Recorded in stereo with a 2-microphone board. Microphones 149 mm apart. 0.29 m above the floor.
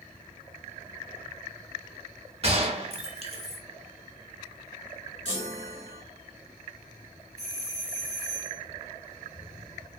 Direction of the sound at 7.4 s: 30° right (ahead or behind).